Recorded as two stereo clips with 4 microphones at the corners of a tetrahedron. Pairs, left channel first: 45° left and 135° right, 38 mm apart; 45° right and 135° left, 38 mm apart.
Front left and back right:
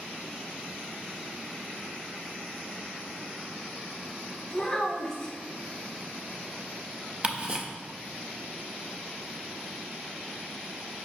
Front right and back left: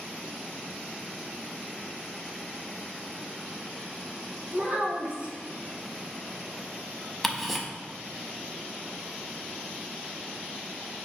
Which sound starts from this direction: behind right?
Ticking, at 7.2 s.